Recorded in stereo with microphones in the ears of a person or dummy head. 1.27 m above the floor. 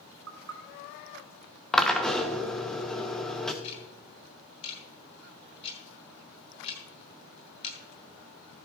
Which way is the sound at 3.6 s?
35° left (ahead or behind).